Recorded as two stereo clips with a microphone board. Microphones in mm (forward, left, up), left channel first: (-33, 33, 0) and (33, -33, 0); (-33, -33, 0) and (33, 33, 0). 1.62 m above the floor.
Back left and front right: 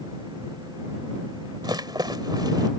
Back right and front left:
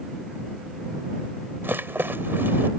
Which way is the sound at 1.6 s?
20° right.